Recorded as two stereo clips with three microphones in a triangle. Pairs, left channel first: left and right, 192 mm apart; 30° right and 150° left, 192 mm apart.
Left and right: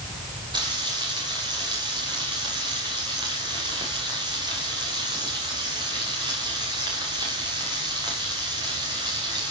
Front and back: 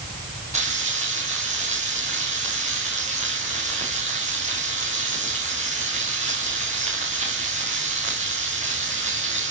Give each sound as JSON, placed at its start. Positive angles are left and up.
{"t": 0.5, "sound": "frying", "azimuth_deg": -155, "distance_m": 6.0}